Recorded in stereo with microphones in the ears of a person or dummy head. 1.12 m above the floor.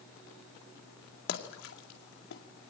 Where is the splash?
70° left (ahead or behind), 2 m.